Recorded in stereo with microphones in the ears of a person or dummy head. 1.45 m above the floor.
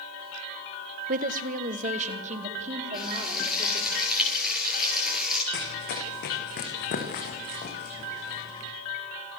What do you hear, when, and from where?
1.1 s a woman speaking: 45° right (ahead or behind), 1.5 m; by 3.9 s 35° right (ahead or behind), 5.5 m
2.9 s frying: centre (ahead or behind), 10 m
5.5 s running footsteps: 55° left (ahead or behind), 5.5 m; by 8.7 s 30° left (ahead or behind), 5 m